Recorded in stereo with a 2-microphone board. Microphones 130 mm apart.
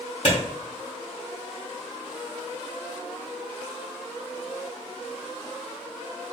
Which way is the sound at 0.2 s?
55° left (ahead or behind).